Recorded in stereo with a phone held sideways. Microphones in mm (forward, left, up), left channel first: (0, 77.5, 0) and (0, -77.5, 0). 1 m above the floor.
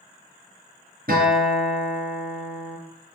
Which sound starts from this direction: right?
A guitar, at 1.1 s.